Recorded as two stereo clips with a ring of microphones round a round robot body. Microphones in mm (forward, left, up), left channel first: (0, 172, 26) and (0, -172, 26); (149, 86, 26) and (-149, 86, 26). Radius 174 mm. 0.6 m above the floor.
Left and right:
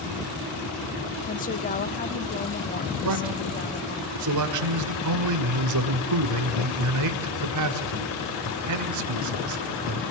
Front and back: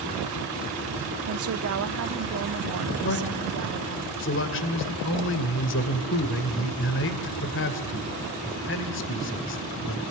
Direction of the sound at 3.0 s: 55° right.